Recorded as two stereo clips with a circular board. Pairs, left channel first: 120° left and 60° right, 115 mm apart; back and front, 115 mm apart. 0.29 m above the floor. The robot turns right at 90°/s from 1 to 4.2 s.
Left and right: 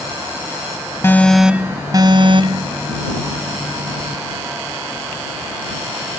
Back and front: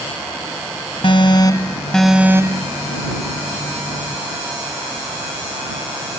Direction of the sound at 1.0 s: Straight behind.